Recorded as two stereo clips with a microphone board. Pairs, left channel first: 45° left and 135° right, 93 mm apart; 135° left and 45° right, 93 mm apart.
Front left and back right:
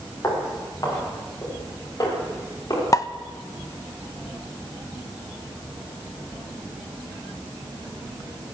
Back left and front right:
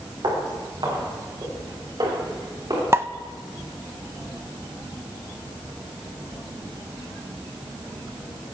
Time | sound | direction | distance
0.2 | footsteps | 10° right | 7 m
2.9 | a pop | 10° left | 0.6 m